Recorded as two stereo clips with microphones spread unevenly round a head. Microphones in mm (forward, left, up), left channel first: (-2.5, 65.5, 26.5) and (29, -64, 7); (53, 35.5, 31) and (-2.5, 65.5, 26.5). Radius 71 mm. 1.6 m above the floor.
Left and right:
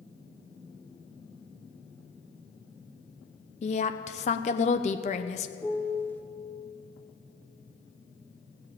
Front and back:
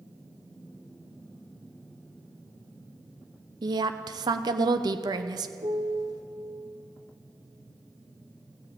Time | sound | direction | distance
3.6 | a woman speaking | 145° left | 0.7 m
5.6 | a piano | 175° left | 0.6 m